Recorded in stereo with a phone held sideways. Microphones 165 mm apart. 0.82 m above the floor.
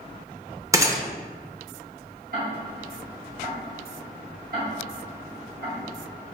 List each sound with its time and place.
0.7 s a gunshot: 20° right (ahead or behind), 0.5 m
2.3 s ticking: 60° right (ahead or behind), 1.5 m